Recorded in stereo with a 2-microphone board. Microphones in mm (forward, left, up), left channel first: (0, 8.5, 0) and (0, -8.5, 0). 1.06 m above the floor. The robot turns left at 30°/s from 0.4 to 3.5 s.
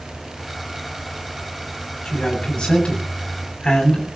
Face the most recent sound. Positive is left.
turn(degrees=60)